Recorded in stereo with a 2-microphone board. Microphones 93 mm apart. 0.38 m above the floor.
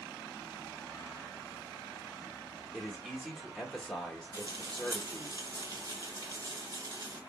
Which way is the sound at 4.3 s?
45° right (ahead or behind).